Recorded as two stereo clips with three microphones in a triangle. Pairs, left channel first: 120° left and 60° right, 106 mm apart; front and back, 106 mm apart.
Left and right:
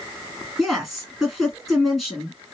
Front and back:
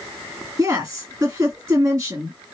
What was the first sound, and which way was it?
A woman speaking, 145° right.